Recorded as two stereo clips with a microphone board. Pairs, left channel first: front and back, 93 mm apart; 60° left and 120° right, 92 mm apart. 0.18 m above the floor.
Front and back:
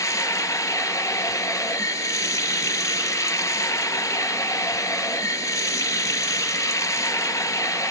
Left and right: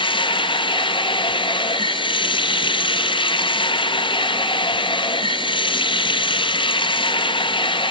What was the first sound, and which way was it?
Running water, 55° left.